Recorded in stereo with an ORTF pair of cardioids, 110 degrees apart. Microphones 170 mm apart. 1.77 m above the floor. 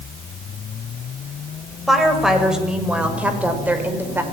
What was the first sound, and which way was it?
A woman speaking, straight ahead.